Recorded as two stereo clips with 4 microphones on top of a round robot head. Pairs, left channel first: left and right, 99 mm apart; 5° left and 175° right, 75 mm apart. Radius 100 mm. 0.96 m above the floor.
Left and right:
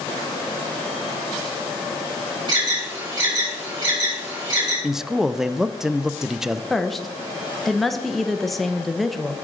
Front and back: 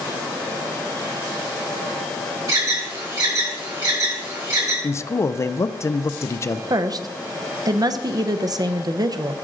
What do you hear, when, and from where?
2.5 s an alarm: 135° right, 6 m
4.8 s a man speaking: 5° right, 0.6 m
6.7 s a woman speaking: straight behind, 0.9 m